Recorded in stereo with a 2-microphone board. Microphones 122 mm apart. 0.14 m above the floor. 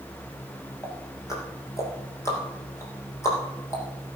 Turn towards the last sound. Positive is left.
turn(degrees=25)  # may be behind; listen again after turning